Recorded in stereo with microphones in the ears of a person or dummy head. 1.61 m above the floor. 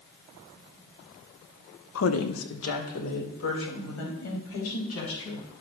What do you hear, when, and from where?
1.9 s a woman speaking: 75° left (ahead or behind), 0.8 m; by 5.4 s 90° left, 5.5 m